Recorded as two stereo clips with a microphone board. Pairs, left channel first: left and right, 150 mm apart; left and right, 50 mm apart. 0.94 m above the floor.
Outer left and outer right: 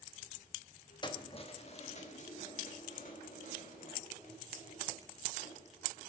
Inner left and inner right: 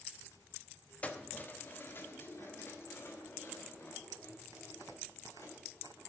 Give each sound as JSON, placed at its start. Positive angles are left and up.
{"t": 1.0, "sound": "keys jangling", "side_deg": 30, "distance_m": 0.8}